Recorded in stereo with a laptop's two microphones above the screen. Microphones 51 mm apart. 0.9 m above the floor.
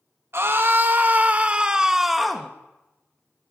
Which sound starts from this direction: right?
A scream, at 0.3 s.